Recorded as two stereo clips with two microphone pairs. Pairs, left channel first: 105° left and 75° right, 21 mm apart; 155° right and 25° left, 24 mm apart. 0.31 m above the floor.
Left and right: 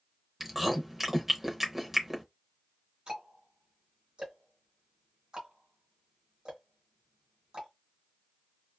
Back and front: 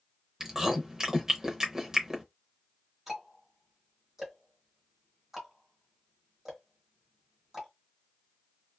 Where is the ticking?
50° right, 1.2 m.